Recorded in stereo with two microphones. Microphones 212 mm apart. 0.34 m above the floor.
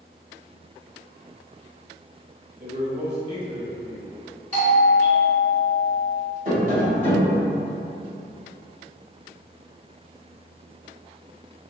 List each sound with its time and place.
2.6 s a man speaking: 30° right (ahead or behind), 1.3 m
4.5 s a doorbell: 40° right (ahead or behind), 1.5 m
6.5 s tapping: 45° right (ahead or behind), 1.4 m